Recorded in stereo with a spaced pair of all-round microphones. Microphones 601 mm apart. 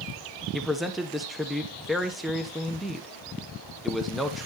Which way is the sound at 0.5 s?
Centre (ahead or behind).